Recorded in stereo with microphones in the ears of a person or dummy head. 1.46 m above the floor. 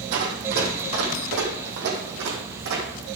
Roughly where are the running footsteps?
Right.